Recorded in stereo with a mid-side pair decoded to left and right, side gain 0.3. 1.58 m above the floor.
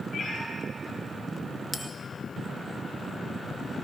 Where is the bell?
15° left, 2 m.